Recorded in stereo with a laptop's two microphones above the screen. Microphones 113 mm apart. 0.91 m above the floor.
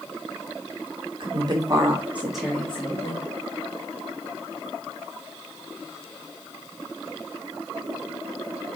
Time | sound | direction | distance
1.2 | a woman speaking | 45° right (ahead or behind) | 1.5 m